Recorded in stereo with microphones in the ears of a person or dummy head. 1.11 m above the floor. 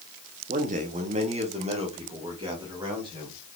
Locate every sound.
0.5 s a man speaking: 40° right (ahead or behind), 0.7 m; by 3.4 s 25° right (ahead or behind), 2.5 m